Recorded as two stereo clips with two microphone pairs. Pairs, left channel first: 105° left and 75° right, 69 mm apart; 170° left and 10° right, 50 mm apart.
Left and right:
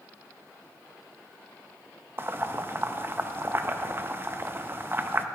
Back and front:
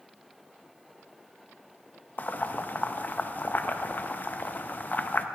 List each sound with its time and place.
2.2 s boiling: 135° right, 0.5 m